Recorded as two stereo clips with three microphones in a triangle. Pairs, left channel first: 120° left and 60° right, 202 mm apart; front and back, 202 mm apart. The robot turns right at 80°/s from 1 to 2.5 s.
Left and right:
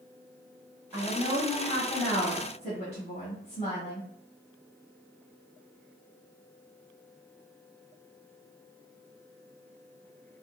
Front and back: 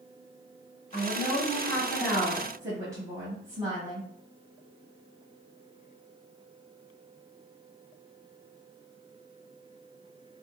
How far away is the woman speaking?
About 1.3 m.